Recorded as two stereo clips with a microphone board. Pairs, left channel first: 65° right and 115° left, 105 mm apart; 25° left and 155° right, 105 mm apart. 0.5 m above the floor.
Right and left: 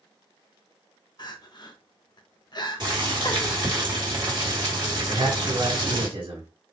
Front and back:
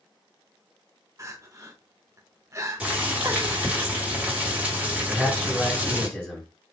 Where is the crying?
105° right, 0.6 m.